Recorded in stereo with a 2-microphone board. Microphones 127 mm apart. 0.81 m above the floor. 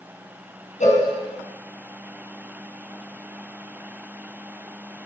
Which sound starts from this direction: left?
A cowbell, at 0.8 s.